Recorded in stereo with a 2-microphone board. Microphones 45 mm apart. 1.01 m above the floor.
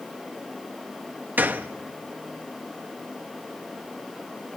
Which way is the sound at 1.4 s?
45° right (ahead or behind).